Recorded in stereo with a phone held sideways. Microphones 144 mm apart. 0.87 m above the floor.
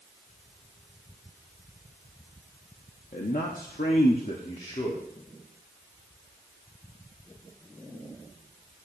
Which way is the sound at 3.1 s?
60° left (ahead or behind).